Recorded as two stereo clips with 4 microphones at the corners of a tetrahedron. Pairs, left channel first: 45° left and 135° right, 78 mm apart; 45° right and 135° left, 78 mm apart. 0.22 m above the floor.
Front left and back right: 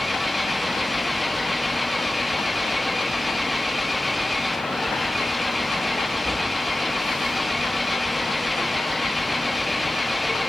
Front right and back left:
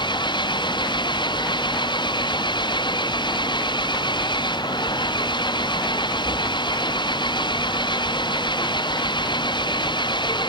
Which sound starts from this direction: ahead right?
An engine running, at 0.0 s.